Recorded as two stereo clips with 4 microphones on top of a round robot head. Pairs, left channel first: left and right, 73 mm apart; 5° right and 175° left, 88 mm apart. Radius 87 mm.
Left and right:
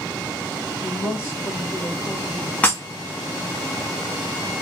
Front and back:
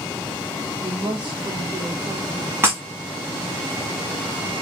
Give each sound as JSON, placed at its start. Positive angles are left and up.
{"t": 0.8, "sound": "a woman speaking", "azimuth_deg": 150, "distance_m": 2.0}
{"t": 2.6, "sound": "breaking glass", "azimuth_deg": 135, "distance_m": 1.1}